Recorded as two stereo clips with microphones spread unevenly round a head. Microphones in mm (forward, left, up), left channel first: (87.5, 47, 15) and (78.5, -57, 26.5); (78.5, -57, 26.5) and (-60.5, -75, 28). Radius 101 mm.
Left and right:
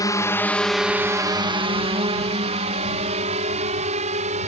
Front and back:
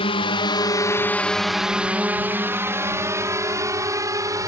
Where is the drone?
50° left; by 4.5 s 105° right.